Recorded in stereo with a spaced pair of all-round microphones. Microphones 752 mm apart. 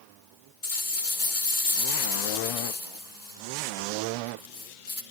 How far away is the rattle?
About 2 m.